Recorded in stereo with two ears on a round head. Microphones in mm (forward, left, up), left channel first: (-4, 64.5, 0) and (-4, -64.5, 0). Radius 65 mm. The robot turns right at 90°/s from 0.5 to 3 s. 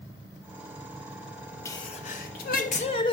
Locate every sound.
1.6 s a sneeze: 20° left, 1.1 m; by 3.1 s 140° left, 1.1 m